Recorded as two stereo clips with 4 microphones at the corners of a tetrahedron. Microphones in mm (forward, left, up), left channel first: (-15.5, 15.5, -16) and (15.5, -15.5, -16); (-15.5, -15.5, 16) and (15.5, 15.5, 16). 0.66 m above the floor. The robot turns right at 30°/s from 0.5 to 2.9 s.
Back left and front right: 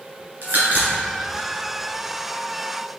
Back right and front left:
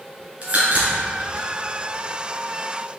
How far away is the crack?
About 1.9 m.